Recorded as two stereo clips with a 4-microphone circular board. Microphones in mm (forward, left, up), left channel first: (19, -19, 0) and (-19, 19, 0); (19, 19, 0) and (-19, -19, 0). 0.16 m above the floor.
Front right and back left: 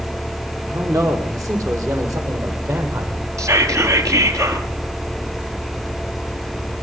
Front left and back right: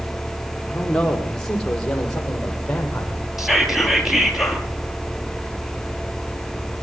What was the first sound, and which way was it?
A man speaking, 125° left.